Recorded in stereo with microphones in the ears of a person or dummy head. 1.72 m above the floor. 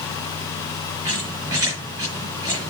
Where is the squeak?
20° right (ahead or behind), 6.5 m.